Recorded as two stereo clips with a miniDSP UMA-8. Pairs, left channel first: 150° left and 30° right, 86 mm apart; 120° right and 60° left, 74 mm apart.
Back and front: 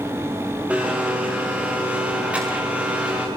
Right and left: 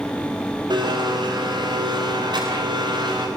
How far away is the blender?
About 9 m.